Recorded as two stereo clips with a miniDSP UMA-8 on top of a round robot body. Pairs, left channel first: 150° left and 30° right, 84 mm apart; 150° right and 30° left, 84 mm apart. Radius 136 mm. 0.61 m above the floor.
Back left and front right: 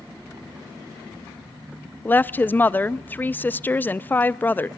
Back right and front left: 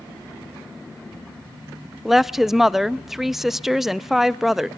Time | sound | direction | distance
2.0 | a woman speaking | 110° left | 0.6 m